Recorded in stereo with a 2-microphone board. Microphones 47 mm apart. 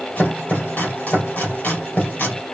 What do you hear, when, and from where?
0.2 s chopping: 35° left (ahead or behind), 2.5 m